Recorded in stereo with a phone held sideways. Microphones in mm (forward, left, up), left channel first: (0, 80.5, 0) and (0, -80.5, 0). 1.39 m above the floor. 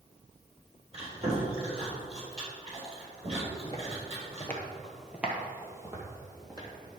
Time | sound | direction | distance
0.9 | chewing | 40° right (ahead or behind) | 3.5 m
3.6 | footsteps | 25° left (ahead or behind) | 1.8 m